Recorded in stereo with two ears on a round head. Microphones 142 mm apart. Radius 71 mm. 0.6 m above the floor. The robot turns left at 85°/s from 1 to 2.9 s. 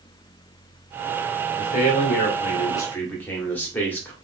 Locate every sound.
1.6 s a man speaking: 130° left, 1.3 m; by 4.1 s 15° left, 1.3 m